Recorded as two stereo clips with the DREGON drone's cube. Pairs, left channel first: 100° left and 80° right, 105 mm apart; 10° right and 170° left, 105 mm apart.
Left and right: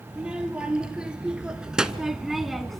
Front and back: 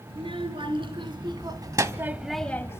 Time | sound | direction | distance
0.1 | a child speaking | 160° right | 3 m